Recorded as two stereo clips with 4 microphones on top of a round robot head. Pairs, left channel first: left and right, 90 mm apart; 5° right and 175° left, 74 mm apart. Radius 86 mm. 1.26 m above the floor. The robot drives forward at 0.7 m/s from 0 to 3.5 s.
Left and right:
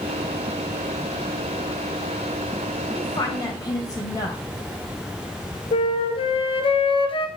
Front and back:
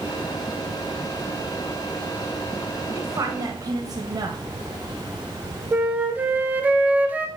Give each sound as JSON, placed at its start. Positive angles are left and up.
{"t": 2.9, "sound": "a woman speaking", "azimuth_deg": 130, "distance_m": 1.6}
{"t": 5.7, "sound": "a flute", "azimuth_deg": 105, "distance_m": 1.8}